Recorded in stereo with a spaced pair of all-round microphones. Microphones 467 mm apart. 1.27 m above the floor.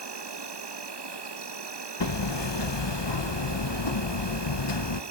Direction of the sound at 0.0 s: 60° right (ahead or behind).